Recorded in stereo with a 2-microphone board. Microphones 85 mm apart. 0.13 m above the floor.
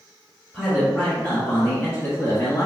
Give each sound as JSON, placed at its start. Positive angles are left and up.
{"t": 0.5, "sound": "a man speaking", "side_deg": 5, "distance_m": 1.3}